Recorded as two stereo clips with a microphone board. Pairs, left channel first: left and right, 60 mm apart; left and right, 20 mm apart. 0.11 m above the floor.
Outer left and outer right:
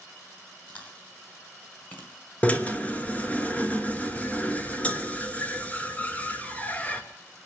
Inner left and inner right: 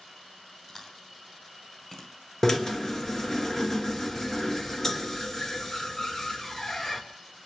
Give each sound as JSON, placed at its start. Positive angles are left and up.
{"t": 0.7, "sound": "chewing", "side_deg": 25, "distance_m": 1.8}
{"t": 2.4, "sound": "a drill", "side_deg": 20, "distance_m": 1.1}